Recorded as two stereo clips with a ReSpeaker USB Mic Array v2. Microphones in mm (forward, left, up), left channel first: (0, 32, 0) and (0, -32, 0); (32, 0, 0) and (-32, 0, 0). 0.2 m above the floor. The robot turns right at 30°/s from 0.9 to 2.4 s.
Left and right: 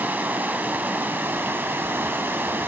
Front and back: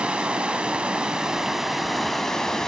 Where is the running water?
120° right, 0.8 m; by 2.7 s 75° right, 0.8 m.